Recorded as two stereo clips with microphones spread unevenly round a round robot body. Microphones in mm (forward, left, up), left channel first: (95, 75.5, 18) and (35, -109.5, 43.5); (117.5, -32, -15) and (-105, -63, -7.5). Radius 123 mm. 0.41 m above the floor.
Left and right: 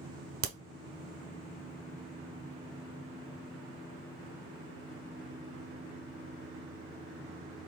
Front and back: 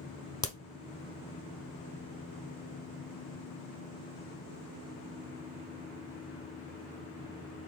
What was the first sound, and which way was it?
A crack, 65° right.